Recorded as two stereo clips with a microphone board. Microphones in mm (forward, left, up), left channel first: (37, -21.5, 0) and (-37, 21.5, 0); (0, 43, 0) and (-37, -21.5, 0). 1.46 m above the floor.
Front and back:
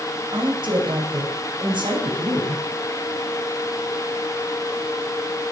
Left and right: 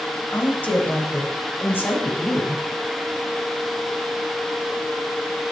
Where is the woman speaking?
130° left, 9 m; by 2.6 s 120° left, 9 m.